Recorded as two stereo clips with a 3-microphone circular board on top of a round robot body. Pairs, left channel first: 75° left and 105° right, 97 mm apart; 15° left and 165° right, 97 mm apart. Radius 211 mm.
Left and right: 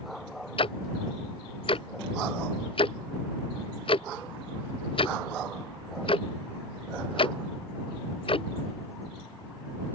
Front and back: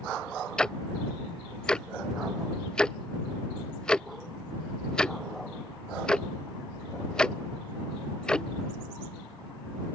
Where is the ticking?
100° left.